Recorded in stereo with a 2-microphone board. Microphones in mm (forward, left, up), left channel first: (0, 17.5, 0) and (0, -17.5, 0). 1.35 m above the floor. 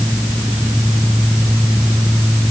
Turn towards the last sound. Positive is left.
No sound to turn to.